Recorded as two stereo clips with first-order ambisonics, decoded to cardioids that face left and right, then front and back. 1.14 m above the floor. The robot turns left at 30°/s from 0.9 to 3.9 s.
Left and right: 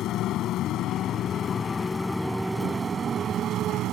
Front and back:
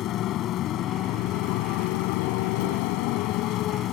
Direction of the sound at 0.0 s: 45° left.